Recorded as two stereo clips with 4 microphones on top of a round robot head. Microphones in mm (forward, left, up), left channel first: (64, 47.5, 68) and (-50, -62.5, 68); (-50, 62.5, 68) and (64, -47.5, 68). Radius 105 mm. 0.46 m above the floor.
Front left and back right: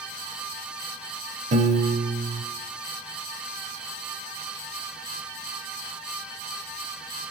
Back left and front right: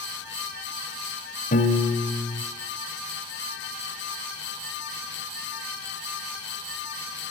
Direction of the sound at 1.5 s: 175° left.